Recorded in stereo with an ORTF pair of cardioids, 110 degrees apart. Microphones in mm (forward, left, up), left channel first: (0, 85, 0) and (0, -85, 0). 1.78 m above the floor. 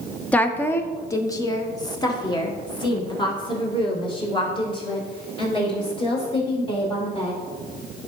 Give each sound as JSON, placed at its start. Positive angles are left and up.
{"t": 0.3, "sound": "a woman speaking", "azimuth_deg": 10, "distance_m": 0.9}